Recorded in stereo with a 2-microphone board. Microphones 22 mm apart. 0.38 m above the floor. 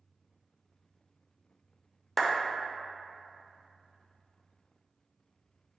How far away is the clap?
About 0.6 m.